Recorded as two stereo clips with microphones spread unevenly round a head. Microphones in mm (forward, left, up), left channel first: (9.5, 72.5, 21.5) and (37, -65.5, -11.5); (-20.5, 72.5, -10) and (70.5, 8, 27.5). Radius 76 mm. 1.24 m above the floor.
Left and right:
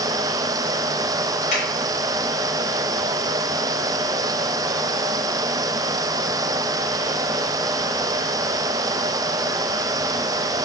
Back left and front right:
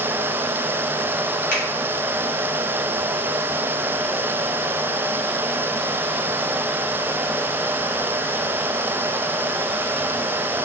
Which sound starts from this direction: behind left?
A finger snap, at 1.5 s.